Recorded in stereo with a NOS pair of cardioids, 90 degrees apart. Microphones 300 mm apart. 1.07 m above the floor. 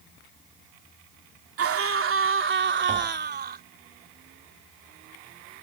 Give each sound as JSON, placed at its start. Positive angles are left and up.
{"t": 1.6, "sound": "a scream", "azimuth_deg": -50}
{"t": 2.9, "sound": "tapping", "azimuth_deg": -20}